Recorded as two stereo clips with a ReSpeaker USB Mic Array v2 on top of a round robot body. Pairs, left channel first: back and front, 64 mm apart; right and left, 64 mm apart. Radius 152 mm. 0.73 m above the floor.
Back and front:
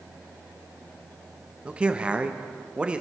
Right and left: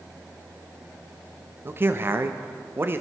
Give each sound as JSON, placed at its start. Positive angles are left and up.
{"t": 1.6, "sound": "a man speaking", "azimuth_deg": 60, "distance_m": 1.2}